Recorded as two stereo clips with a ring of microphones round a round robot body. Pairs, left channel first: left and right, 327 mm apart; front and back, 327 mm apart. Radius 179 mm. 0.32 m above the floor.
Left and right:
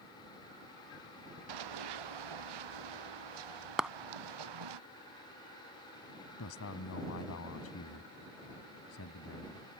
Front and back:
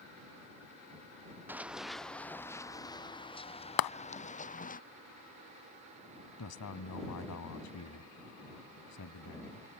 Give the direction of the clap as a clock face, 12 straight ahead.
12 o'clock.